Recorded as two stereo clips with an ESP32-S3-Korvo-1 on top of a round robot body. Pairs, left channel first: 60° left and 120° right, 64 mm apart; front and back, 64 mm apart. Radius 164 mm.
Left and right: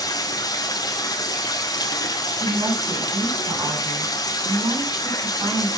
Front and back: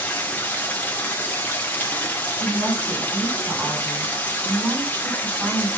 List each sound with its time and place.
0.0 s running water: 65° left, 2 m
2.3 s a woman speaking: 115° right, 9 m